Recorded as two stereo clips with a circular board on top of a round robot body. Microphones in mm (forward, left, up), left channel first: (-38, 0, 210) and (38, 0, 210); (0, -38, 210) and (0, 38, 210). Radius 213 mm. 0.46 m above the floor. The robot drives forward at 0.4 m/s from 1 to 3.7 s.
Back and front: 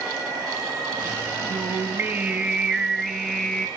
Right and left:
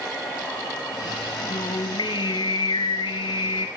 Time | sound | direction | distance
1.5 | singing | 60° right | 1.3 m